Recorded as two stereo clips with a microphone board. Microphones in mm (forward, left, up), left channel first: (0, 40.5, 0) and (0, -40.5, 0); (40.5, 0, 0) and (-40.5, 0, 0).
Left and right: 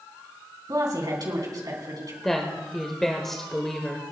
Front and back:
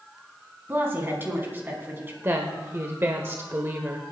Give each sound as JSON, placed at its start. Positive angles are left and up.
{"t": 0.7, "sound": "a woman speaking", "azimuth_deg": -120, "distance_m": 4.0}
{"t": 2.2, "sound": "a woman speaking", "azimuth_deg": 170, "distance_m": 1.2}